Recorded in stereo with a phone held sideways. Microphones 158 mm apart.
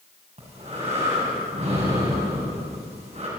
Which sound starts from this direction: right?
Breathing, at 0.4 s.